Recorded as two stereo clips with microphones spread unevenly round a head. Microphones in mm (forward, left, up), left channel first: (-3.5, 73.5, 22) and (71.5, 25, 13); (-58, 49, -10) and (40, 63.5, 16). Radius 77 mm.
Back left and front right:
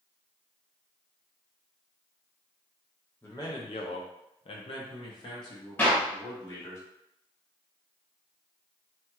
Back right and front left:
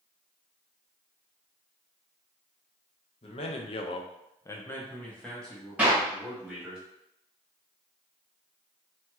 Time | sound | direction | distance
3.2 | a man speaking | 140° right | 0.6 m
5.8 | a clap | 80° left | 1.3 m